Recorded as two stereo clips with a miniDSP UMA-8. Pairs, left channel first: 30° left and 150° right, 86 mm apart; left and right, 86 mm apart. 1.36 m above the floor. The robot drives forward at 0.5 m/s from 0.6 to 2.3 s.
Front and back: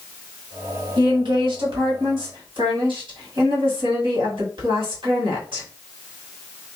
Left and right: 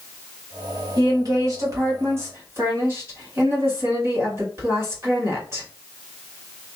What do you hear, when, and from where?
1.0 s a woman speaking: 125° right, 1.2 m; by 5.7 s 145° right, 1.7 m